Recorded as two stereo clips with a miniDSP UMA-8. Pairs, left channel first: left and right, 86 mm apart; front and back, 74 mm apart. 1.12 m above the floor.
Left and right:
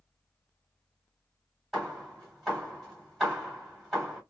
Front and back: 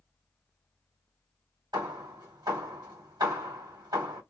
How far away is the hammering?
About 2.5 m.